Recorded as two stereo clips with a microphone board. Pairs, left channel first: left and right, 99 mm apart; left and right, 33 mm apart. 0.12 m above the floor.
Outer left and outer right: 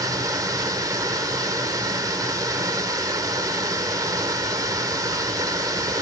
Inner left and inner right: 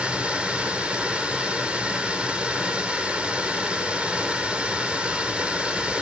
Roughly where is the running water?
Right.